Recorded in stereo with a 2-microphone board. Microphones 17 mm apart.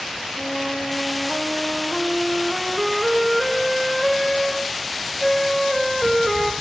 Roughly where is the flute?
Centre.